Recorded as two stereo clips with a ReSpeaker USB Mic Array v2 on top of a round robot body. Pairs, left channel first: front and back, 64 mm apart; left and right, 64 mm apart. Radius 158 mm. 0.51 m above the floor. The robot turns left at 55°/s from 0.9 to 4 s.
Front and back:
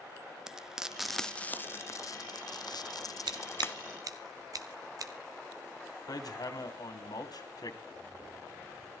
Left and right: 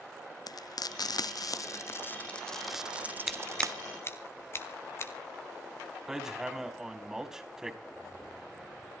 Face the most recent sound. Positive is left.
turn(degrees=75)